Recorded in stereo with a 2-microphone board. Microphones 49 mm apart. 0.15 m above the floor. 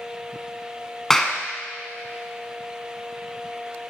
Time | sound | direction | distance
1.1 | a clap | 10° left (ahead or behind) | 0.9 m